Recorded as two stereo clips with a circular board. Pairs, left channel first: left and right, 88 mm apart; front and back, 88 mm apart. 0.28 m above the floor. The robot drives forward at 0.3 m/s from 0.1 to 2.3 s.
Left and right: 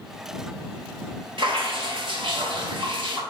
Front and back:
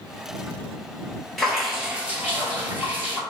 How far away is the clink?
No clink in this recording.